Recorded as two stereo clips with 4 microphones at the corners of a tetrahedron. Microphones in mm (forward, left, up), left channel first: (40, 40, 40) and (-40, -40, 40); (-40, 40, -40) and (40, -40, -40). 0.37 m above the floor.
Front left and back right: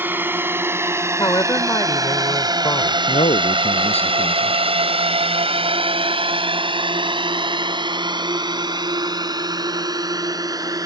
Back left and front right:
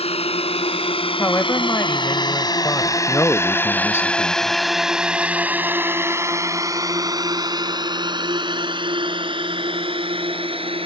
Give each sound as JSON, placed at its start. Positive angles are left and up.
{"t": 0.0, "sound": "a drone", "azimuth_deg": 155}
{"t": 1.2, "sound": "a woman speaking", "azimuth_deg": 80}
{"t": 3.1, "sound": "a man speaking", "azimuth_deg": 65}